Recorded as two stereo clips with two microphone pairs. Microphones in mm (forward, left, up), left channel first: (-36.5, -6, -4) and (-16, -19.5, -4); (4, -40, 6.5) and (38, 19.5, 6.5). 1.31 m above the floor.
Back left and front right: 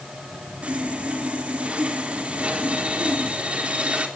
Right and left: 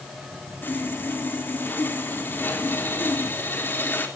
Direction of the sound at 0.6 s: 65° right.